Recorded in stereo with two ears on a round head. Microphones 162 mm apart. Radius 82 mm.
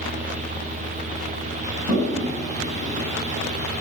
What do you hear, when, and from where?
1.9 s a toilet flushing: 40° right (ahead or behind), 9.5 m